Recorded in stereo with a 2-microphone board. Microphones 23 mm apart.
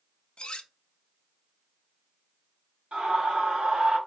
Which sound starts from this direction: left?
Cutlery clinking, at 0.4 s.